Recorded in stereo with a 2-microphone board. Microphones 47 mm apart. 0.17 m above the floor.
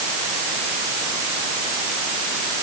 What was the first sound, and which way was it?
Only background noise.